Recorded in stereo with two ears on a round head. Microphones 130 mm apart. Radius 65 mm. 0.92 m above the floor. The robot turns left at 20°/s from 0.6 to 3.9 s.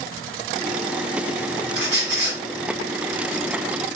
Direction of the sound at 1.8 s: 80° right.